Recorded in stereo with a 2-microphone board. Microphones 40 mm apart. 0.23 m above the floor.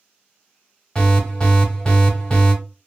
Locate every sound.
0.9 s an alarm: 25° left (ahead or behind), 1.1 m